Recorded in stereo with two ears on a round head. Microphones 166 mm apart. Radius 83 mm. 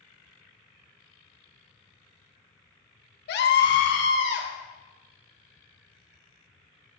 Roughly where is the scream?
Left.